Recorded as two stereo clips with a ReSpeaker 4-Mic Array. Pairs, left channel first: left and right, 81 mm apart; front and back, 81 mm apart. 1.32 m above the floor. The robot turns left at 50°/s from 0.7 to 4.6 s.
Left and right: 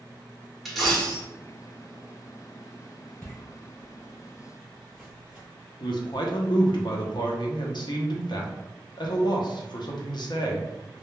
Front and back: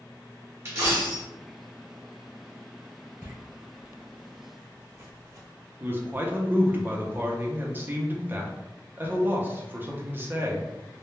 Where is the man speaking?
115° left, 0.6 m.